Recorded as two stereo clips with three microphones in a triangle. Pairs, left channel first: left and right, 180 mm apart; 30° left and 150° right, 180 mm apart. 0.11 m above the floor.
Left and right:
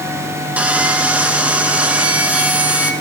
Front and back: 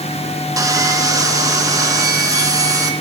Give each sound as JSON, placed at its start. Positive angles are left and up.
{"t": 0.6, "sound": "sawing", "azimuth_deg": -160, "distance_m": 1.5}